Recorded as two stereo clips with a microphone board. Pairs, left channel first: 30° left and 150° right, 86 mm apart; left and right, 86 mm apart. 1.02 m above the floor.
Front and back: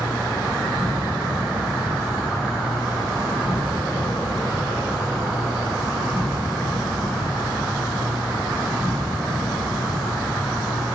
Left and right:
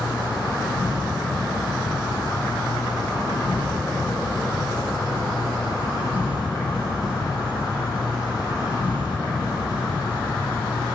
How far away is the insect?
About 6 m.